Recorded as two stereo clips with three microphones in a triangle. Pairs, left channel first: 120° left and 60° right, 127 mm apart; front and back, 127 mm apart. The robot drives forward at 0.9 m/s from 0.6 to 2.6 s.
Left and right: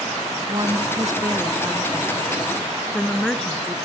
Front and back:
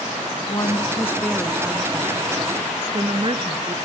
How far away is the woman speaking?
About 1.3 m.